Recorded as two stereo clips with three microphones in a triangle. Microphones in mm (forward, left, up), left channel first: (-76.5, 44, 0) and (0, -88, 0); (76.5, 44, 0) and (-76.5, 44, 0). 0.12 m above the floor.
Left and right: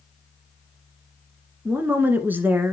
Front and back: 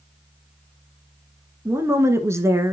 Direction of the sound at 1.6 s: 125° right.